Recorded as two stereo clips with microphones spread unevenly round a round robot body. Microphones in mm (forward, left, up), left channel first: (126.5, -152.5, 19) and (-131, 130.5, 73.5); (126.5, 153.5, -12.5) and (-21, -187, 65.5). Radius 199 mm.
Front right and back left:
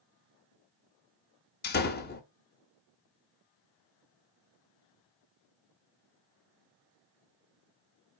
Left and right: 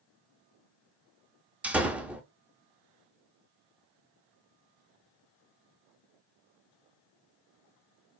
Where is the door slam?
15° right, 0.6 m.